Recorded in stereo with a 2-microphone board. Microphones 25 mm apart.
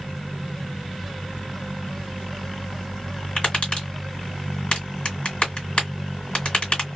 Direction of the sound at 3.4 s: 50° left (ahead or behind).